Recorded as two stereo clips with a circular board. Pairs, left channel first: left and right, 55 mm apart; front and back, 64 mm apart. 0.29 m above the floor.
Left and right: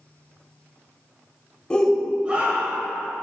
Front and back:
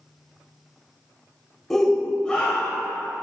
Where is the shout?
70° left, 0.9 m; by 2.9 s 70° right, 1.4 m.